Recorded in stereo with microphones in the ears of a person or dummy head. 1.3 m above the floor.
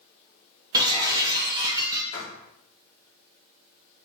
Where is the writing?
25° left (ahead or behind), 1.7 m.